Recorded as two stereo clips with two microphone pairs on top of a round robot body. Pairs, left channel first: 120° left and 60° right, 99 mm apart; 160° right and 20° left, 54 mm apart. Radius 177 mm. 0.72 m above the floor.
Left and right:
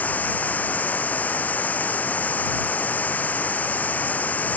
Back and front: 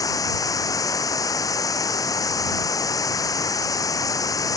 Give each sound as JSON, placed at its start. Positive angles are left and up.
{"t": 0.0, "sound": "running water", "azimuth_deg": -165}